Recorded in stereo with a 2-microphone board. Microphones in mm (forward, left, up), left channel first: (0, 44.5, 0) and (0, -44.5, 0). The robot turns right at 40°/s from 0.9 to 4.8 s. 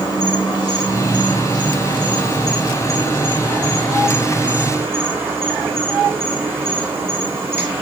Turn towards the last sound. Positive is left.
turn(degrees=-150)